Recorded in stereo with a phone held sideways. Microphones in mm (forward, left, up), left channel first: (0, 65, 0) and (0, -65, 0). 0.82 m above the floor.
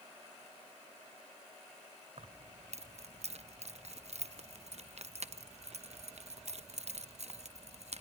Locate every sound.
2.2 s keys jangling: 60° right (ahead or behind), 0.5 m